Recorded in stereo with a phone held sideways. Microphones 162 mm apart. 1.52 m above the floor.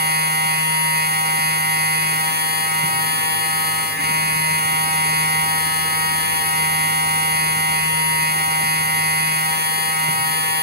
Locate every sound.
0.0 s a machine running: 75° right (ahead or behind), 2 m